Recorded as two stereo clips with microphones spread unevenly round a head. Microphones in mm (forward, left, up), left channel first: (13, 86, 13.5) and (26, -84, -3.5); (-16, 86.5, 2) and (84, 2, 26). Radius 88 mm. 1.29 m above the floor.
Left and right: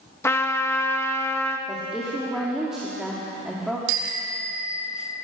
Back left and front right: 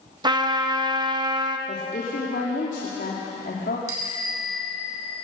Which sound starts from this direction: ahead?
A trumpet, at 0.2 s.